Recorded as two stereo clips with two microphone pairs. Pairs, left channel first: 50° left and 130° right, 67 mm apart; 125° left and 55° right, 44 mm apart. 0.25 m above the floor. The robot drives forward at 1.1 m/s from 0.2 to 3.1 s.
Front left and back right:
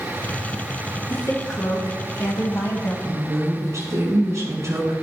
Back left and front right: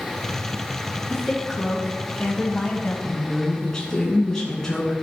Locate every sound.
1.1 s a woman speaking: 35° left, 3 m; by 2.9 s 85° left, 2 m
3.0 s a woman speaking: 160° right, 2.5 m